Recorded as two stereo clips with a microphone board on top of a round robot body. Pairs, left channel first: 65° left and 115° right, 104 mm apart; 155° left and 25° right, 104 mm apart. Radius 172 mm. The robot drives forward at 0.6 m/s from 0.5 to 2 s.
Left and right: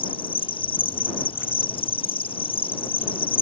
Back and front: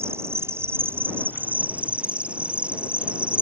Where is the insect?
40° left; by 3.4 s 55° left.